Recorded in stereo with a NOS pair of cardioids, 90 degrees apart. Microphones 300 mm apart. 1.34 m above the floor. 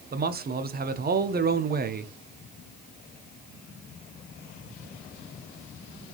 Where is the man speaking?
30° right, 0.7 m.